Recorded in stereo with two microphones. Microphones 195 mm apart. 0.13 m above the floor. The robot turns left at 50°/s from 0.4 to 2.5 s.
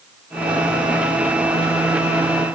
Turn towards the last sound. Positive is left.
No sound to turn to.